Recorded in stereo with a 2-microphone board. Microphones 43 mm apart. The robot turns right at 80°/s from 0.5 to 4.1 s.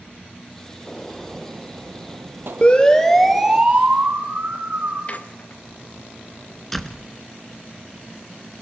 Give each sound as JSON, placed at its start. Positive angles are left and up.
{"t": 0.9, "sound": "a gunshot", "azimuth_deg": 160, "distance_m": 0.9}
{"t": 2.6, "sound": "a siren", "side_deg": 30, "distance_m": 3.0}
{"t": 5.1, "sound": "a squeak", "side_deg": 35, "distance_m": 1.4}
{"t": 6.7, "sound": "a door slam", "side_deg": 5, "distance_m": 1.2}